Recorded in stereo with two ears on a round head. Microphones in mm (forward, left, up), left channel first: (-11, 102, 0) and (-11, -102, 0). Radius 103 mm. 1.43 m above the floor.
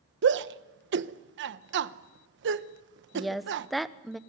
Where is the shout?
55° right (ahead or behind), 1.0 m.